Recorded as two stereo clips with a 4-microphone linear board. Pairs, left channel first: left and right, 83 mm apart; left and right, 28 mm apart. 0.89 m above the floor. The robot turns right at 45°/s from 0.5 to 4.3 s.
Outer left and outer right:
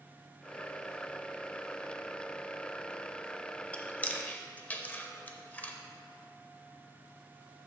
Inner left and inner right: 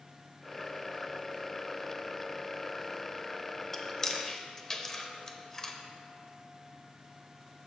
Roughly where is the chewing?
Centre.